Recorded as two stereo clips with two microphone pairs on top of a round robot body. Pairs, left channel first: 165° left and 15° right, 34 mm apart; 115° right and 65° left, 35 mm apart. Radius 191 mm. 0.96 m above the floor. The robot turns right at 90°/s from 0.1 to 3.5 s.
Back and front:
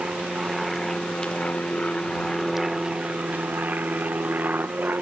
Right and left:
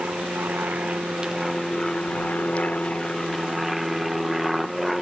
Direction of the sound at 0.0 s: 30° left.